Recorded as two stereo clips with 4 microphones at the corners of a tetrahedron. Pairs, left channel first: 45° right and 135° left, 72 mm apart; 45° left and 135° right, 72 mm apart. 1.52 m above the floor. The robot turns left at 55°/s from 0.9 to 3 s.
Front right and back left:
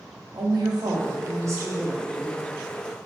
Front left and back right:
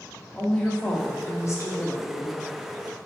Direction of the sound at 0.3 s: 125° left.